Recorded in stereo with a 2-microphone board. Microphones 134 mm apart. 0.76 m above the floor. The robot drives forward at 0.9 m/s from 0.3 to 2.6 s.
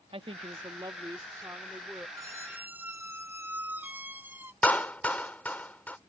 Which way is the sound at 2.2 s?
25° right (ahead or behind).